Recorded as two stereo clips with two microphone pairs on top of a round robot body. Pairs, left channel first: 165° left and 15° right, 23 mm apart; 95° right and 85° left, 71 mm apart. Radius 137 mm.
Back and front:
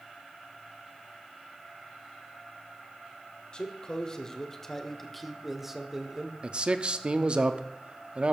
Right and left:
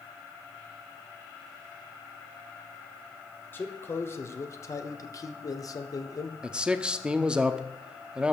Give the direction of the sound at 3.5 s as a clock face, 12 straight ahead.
5 o'clock.